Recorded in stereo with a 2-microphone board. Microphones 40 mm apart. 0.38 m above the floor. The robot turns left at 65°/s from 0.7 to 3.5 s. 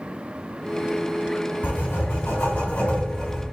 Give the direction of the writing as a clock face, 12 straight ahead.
8 o'clock.